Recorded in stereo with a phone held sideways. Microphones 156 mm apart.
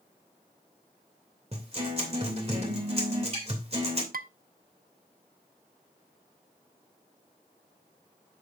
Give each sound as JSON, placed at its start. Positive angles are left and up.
{"t": 1.5, "sound": "a guitar", "side_deg": -40, "distance_m": 2.5}
{"t": 4.1, "sound": "dishes clattering", "side_deg": -65, "distance_m": 0.5}